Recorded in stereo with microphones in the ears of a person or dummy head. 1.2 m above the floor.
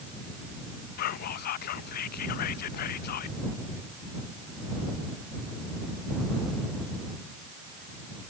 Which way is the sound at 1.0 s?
55° left (ahead or behind).